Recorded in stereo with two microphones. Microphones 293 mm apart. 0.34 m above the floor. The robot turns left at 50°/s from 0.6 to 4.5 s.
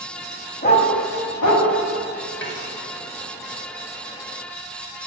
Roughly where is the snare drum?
Left.